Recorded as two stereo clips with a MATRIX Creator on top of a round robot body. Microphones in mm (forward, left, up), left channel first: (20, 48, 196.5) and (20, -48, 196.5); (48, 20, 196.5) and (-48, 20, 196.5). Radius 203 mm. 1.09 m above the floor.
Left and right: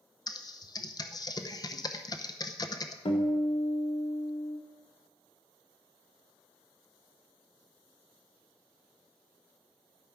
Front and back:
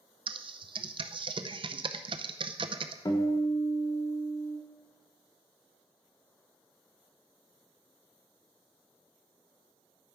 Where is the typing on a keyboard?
140° left, 0.7 m.